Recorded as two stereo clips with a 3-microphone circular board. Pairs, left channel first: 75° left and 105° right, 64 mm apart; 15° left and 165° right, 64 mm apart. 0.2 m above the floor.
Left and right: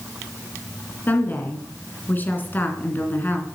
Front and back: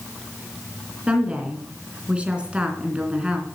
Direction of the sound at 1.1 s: 125° left.